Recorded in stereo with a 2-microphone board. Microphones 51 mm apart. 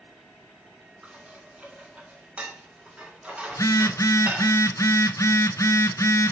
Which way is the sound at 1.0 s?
25° right (ahead or behind).